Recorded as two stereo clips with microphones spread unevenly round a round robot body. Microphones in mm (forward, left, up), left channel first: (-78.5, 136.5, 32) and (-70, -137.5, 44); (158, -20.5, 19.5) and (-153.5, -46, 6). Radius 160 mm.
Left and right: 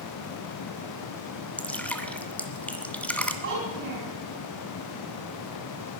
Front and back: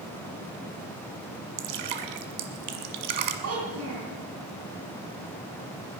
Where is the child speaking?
130° right, 3.5 m.